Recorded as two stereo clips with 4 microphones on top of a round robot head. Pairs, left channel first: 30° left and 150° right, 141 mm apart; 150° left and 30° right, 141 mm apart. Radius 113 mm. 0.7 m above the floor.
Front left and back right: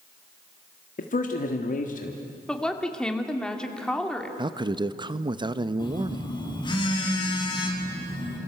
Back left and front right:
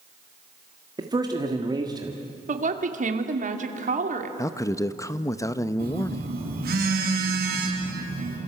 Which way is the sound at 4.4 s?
165° right.